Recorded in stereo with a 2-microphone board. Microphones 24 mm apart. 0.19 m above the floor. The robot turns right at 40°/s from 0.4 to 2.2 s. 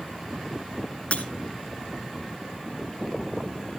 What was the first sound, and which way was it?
Breaking glass, 55° left (ahead or behind).